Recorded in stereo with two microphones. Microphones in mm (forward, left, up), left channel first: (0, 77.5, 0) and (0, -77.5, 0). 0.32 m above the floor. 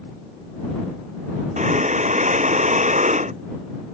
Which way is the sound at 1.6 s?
50° right (ahead or behind).